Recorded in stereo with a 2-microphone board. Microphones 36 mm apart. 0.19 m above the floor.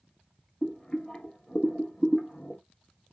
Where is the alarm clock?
No alarm clock in this recording.